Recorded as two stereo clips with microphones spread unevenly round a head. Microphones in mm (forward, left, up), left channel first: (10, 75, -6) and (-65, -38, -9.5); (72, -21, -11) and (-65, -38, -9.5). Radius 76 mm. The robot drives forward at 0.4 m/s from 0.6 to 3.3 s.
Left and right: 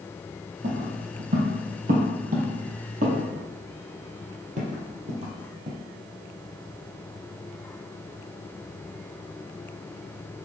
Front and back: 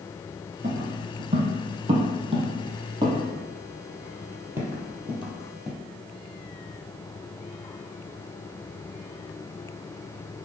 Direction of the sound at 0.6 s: 130° right.